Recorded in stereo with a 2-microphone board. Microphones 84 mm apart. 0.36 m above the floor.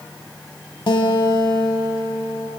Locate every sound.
0.9 s a guitar: 65° left (ahead or behind), 0.7 m